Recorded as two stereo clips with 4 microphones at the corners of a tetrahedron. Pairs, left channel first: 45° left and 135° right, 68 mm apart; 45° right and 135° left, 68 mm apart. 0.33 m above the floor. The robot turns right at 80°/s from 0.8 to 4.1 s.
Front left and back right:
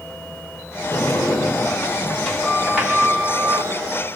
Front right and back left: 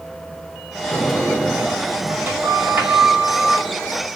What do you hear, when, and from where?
0.9 s a sliding door: straight ahead, 1.4 m; by 3.7 s 135° right, 1.4 m